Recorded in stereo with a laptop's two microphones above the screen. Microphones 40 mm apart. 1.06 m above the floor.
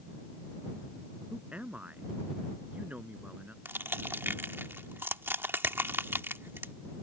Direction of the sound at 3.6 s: 85° right.